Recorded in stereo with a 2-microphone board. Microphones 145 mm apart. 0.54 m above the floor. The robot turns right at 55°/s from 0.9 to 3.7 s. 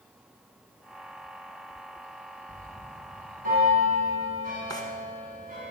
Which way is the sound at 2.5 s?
155° right.